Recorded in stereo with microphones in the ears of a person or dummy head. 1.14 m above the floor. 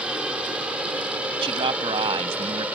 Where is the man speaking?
30° right (ahead or behind).